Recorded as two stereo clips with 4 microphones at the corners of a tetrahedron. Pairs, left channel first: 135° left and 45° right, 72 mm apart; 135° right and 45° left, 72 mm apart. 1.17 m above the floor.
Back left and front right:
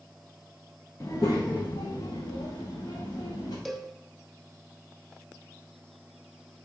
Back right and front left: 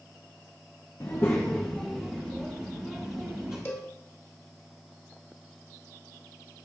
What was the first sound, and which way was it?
A child speaking, 175° right.